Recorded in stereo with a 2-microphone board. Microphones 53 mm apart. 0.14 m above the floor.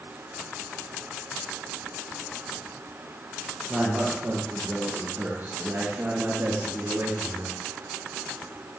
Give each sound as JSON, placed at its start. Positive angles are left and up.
{"t": 3.7, "sound": "a man speaking", "side_deg": -20, "distance_m": 4.0}